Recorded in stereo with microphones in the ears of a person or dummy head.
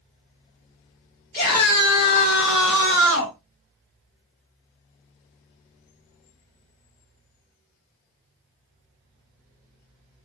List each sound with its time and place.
1.3 s a scream: 25° left (ahead or behind), 1.1 m; by 3.4 s 80° left, 1.3 m